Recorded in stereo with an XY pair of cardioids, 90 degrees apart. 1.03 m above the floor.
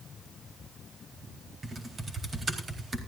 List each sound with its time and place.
1.6 s typing on a keyboard: 40° right, 4 m